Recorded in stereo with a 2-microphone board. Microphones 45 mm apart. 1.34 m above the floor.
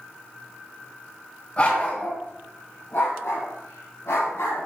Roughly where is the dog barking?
Left.